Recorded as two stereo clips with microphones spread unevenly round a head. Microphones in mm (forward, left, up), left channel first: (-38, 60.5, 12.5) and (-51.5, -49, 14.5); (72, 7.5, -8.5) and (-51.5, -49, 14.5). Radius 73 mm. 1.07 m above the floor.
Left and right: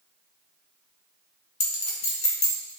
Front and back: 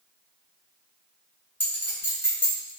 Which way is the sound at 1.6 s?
100° left.